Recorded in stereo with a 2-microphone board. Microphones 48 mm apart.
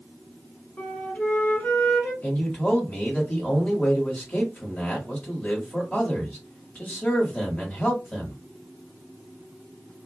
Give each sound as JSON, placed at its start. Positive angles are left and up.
{"t": 0.8, "sound": "a flute", "side_deg": 35, "distance_m": 1.8}
{"t": 2.2, "sound": "a man speaking", "side_deg": 30, "distance_m": 1.3}